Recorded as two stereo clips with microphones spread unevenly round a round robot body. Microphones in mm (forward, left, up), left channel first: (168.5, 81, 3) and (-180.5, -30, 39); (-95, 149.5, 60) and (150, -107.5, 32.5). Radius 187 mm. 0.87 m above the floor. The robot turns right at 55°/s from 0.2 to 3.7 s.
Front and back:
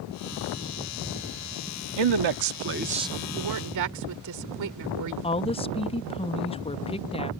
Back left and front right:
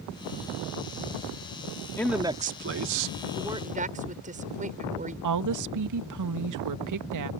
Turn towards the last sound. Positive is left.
turn(degrees=-50)